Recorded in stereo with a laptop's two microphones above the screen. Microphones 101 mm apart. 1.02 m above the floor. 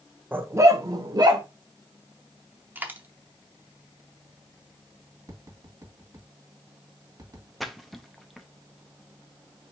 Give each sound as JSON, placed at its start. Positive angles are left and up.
{"t": 0.3, "sound": "a dog barking", "side_deg": -20, "distance_m": 0.6}
{"t": 2.8, "sound": "a dropped coin", "side_deg": -20, "distance_m": 0.6}
{"t": 5.3, "sound": "tapping", "side_deg": -40, "distance_m": 1.8}
{"t": 7.6, "sound": "a splash", "side_deg": 0, "distance_m": 0.7}